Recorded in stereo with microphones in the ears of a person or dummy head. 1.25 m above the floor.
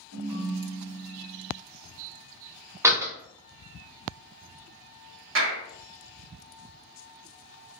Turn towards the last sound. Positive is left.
turn(degrees=-65)  # may be behind; listen again after turning